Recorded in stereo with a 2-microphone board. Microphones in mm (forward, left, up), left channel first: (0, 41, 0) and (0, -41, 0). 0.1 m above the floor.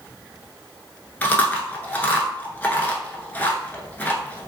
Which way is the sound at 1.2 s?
20° left (ahead or behind).